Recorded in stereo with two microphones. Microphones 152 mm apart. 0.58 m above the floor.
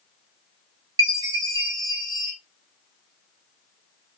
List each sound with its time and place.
1.0 s a chime: 25° right (ahead or behind), 0.9 m